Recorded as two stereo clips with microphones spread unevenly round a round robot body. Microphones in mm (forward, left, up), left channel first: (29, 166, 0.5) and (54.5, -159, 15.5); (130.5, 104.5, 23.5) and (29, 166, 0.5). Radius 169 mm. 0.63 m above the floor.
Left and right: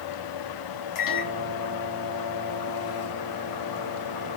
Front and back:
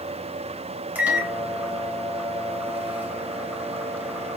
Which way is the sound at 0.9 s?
75° left.